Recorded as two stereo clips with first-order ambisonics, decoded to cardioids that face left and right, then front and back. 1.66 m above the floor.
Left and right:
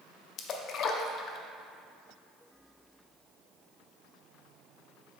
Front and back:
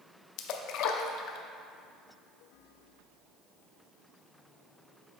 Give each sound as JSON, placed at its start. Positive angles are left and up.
{"t": 0.4, "sound": "a splash", "azimuth_deg": 35, "distance_m": 0.5}